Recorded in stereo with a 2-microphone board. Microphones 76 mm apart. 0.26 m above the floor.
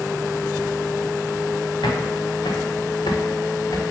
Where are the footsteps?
85° left, 2.5 m; by 3.8 s 45° left (ahead or behind), 2 m.